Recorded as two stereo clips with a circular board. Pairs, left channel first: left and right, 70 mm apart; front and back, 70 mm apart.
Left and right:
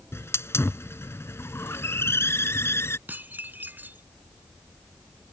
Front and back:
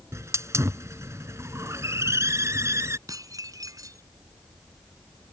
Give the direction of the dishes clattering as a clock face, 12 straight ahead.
5 o'clock.